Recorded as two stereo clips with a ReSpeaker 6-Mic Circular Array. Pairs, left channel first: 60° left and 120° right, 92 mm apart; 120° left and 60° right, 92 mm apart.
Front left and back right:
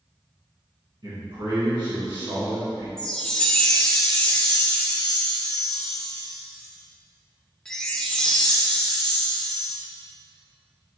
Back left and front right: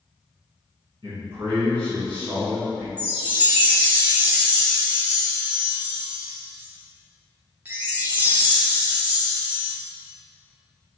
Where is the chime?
15° right, 0.6 m.